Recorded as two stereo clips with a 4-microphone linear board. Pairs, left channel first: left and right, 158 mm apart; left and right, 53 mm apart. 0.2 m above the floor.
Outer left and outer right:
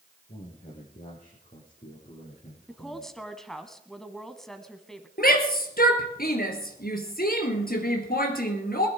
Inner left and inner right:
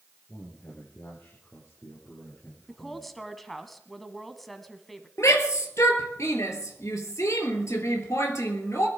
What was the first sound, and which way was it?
A man speaking, 60° left (ahead or behind).